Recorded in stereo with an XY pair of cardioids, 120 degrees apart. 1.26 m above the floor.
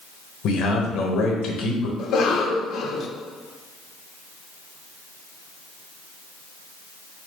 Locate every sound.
0.4 s a man speaking: 70° left, 1.0 m
2.0 s a cough: 55° left, 0.7 m